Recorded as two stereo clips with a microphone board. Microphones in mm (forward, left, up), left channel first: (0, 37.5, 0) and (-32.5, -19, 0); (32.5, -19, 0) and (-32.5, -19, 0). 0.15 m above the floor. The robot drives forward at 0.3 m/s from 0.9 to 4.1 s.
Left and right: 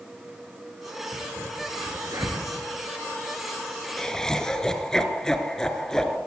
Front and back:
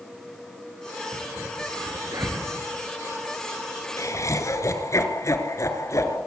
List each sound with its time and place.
1.1 s a crack: 150° right, 4 m; by 4.2 s 155° right, 5 m
4.0 s laughter: 20° right, 2.5 m